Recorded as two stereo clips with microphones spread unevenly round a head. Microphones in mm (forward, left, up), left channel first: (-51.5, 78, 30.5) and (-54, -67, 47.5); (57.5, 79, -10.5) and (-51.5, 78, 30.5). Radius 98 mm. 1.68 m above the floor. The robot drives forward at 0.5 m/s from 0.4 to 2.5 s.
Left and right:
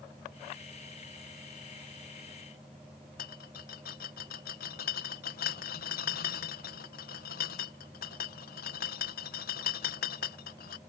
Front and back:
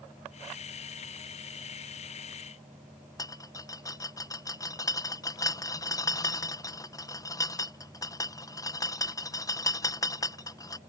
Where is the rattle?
60° left.